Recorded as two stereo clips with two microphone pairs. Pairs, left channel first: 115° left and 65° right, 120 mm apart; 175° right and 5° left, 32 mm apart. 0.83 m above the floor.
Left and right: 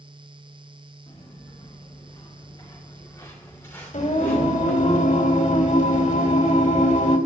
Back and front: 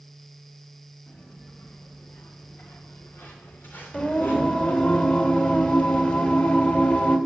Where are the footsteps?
170° left, 6 m; by 4.9 s 165° right, 5.5 m.